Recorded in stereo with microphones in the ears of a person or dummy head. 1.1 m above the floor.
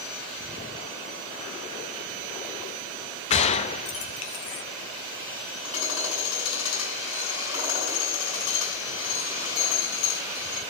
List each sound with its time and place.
3.3 s a gunshot: 35° left (ahead or behind), 0.5 m
5.6 s hammering: 75° left (ahead or behind), 5 m